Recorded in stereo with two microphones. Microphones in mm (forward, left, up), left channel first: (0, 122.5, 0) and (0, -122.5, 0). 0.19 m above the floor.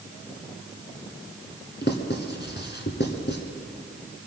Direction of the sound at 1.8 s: 50° left (ahead or behind).